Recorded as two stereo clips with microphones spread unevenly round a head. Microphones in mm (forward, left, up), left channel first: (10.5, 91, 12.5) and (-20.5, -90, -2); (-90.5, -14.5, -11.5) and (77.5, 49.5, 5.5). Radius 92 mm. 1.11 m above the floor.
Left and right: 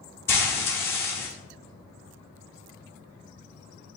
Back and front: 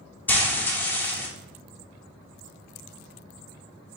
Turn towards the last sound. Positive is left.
turn(degrees=120)